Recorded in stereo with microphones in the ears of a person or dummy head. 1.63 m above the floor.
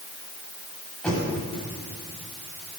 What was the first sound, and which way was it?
Knocking, 5° left (ahead or behind).